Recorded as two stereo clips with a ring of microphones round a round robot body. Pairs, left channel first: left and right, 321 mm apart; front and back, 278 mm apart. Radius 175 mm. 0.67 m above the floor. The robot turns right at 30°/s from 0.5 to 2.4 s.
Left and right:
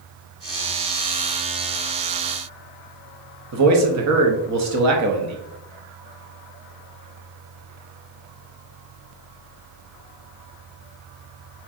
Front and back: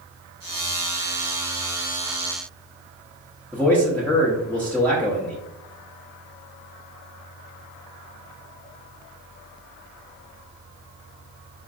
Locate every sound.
3.5 s a man speaking: 85° right, 0.8 m